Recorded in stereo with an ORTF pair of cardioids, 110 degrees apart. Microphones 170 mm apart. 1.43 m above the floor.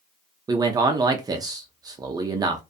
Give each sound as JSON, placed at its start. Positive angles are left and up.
{"t": 0.5, "sound": "a man speaking", "azimuth_deg": -25, "distance_m": 0.5}